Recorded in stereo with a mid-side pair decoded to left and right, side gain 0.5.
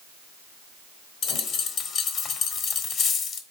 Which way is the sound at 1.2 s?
65° left.